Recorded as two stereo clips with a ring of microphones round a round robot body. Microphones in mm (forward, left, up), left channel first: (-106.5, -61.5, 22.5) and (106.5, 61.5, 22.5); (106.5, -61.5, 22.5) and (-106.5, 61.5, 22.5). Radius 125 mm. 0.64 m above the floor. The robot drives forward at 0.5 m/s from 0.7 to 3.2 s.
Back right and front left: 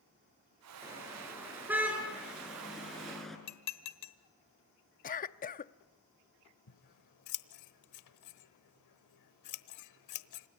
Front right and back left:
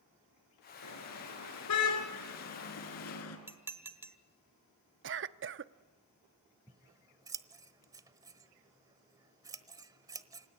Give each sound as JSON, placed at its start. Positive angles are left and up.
{"t": 0.8, "sound": "a car horn", "azimuth_deg": -50, "distance_m": 5.5}
{"t": 3.5, "sound": "dishes clattering", "azimuth_deg": -130, "distance_m": 1.5}
{"t": 5.0, "sound": "a cough", "azimuth_deg": 165, "distance_m": 0.8}
{"t": 6.7, "sound": "scissors", "azimuth_deg": -135, "distance_m": 1.1}